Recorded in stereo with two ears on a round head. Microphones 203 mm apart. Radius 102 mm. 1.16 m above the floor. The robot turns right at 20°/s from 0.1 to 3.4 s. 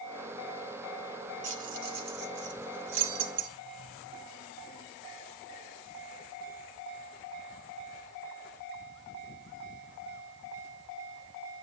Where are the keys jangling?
35° right (ahead or behind), 1.8 m; by 3.5 s 70° right (ahead or behind), 1.8 m.